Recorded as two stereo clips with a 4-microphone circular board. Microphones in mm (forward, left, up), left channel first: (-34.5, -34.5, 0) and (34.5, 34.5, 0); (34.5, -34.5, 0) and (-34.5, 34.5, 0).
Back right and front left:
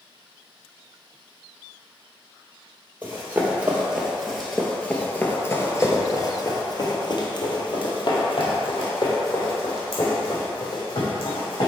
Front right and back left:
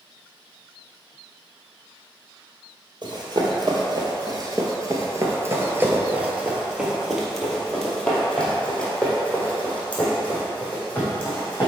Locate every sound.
3.0 s running footsteps: 110° left, 1.7 m; by 11.7 s 115° right, 3.5 m